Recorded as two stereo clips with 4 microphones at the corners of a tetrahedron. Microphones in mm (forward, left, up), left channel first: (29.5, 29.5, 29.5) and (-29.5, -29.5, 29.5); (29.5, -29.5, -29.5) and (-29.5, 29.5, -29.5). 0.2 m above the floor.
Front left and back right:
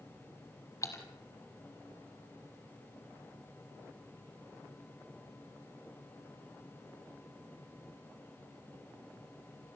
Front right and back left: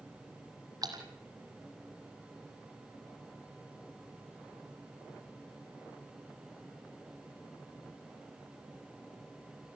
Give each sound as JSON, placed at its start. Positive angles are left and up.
{"t": 0.8, "sound": "a splash", "azimuth_deg": 95, "distance_m": 2.5}